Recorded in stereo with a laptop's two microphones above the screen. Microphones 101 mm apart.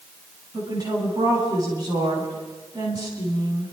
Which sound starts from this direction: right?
A woman speaking, at 0.5 s.